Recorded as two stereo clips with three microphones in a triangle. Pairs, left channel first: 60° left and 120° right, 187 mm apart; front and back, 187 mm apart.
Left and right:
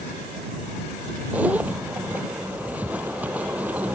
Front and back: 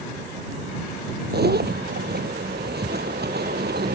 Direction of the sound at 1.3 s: 160° left.